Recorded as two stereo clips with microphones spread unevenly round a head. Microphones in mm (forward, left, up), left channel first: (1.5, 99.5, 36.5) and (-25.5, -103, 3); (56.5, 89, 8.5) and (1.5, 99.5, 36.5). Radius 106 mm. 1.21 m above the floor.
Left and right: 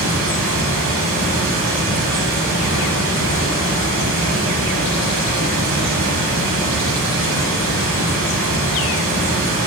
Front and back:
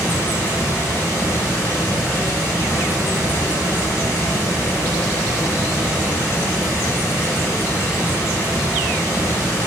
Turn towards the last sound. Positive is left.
turn(degrees=-80)